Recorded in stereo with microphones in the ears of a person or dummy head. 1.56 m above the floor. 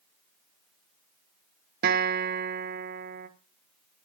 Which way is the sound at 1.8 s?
45° right (ahead or behind).